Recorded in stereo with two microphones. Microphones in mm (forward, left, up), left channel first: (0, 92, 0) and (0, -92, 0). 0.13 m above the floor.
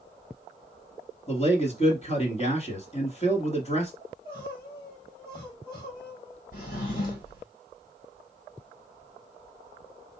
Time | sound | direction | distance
1.3 | a man speaking | 35° left (ahead or behind) | 1.5 m
4.0 | crying | 30° left (ahead or behind) | 2.5 m
6.5 | a drawer | 50° left (ahead or behind) | 2 m